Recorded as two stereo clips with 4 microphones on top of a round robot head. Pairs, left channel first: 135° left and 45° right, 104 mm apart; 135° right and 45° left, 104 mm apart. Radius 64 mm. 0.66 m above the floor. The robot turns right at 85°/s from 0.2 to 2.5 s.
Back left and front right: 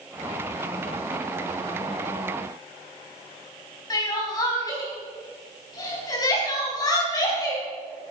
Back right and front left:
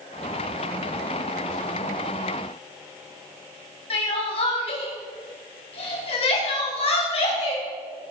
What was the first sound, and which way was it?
Crying, 170° right.